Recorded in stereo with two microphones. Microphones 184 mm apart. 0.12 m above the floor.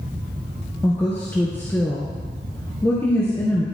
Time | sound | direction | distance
0.8 | a woman speaking | 10° left (ahead or behind) | 1.8 m